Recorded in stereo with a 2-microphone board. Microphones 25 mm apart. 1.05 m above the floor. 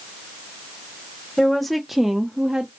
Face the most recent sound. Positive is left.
turn(degrees=-35)  # may be behind; listen again after turning